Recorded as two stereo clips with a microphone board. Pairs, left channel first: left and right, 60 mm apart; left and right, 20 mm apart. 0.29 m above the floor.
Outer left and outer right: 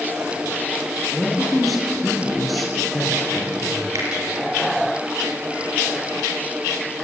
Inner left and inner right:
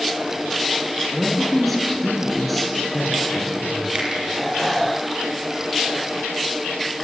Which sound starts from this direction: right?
A finger snap, at 4.0 s.